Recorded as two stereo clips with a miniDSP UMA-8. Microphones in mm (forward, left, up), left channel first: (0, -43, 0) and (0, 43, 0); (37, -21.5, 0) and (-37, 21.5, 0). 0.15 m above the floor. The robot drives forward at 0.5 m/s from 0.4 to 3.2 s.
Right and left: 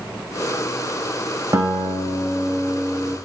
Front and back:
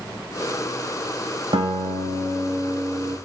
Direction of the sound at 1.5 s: 145° left.